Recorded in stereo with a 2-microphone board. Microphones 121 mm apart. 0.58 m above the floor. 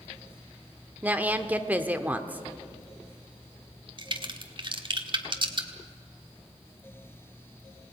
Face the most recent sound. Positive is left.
turn(degrees=-40)  # may be behind; listen again after turning